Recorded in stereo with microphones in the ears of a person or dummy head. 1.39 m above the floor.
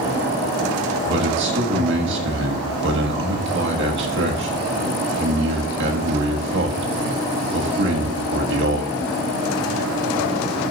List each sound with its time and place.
1.1 s a man speaking: 65° right (ahead or behind), 1.9 m